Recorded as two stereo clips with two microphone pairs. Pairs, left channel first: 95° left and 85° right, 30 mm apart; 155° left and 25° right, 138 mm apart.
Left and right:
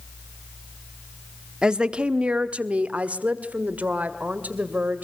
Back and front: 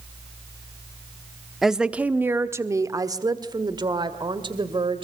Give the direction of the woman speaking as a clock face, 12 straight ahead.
4 o'clock.